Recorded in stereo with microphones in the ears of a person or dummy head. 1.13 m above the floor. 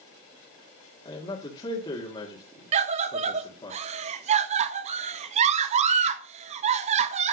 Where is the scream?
40° right (ahead or behind), 1.2 m.